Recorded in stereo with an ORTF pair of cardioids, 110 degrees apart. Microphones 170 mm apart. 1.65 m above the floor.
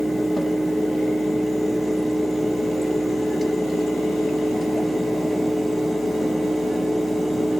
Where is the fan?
Straight ahead, 0.8 m.